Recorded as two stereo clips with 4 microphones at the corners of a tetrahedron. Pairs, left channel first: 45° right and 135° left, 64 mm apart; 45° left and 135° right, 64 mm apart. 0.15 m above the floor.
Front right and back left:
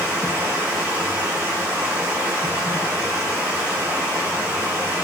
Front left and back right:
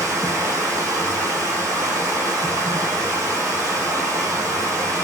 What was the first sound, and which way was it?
Running water, 165° right.